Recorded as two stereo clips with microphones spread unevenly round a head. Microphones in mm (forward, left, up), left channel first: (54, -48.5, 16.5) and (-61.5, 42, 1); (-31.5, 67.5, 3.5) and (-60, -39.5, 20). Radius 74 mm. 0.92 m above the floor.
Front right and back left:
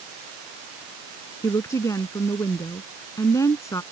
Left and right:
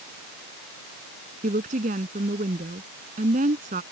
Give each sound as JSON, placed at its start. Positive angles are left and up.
{"t": 1.4, "sound": "a woman speaking", "azimuth_deg": -110}